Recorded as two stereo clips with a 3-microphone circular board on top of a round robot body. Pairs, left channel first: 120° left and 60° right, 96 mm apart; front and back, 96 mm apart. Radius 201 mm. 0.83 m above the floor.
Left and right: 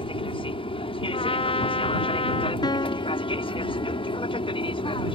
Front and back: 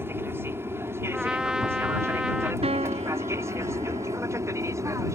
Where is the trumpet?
100° left.